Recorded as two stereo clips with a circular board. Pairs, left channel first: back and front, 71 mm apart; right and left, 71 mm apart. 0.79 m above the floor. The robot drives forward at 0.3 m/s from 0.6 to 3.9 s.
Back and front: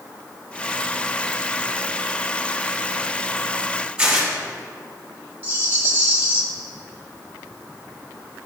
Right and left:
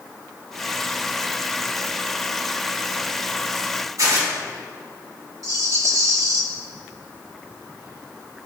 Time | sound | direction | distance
4.0 | tearing paper | 75° left | 2.5 m
5.4 | a rattle | 60° left | 1.3 m